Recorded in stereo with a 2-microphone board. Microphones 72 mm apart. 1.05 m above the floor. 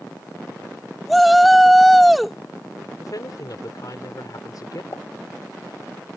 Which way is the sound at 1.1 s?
Centre (ahead or behind).